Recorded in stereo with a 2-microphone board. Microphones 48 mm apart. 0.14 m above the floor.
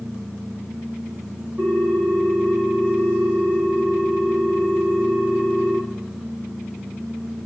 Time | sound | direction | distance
1.6 | a ringtone | 25° right (ahead or behind) | 3.5 m